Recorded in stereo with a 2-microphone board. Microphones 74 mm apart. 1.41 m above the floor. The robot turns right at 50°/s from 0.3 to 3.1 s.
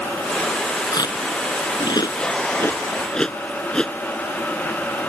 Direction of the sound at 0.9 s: 55° left (ahead or behind).